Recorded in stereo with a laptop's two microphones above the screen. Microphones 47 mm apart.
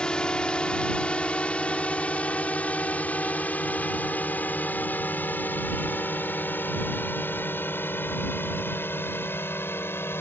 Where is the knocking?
No knocking in this recording.